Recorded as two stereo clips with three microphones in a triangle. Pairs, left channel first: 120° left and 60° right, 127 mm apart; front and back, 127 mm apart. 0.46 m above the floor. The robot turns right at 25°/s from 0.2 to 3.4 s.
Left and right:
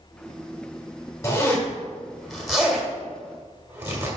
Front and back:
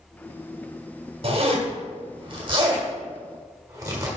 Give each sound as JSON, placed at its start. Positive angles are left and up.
{"t": 1.2, "sound": "a zipper", "azimuth_deg": 180, "distance_m": 1.7}